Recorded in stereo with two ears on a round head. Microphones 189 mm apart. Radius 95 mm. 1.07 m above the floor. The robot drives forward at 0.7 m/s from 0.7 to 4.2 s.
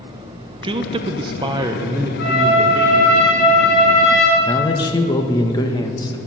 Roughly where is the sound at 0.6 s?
Right.